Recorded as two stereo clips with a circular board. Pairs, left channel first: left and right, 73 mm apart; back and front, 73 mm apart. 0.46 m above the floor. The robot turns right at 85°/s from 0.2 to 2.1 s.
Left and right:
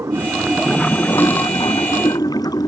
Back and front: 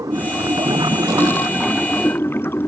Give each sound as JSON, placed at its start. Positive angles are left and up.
{"t": 0.0, "sound": "running water", "azimuth_deg": -40}